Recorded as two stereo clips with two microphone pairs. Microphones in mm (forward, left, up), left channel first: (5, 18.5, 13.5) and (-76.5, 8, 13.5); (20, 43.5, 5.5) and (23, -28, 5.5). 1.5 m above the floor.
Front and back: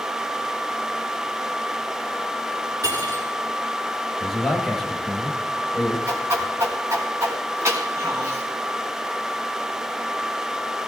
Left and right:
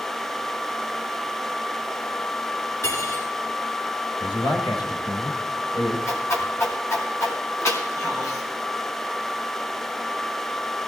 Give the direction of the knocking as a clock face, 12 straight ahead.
I don't hear knocking.